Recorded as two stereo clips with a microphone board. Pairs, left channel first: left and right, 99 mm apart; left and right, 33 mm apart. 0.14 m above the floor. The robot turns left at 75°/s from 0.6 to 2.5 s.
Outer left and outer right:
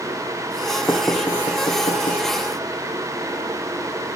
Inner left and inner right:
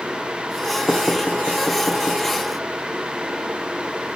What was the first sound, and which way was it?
Knocking, 20° left (ahead or behind).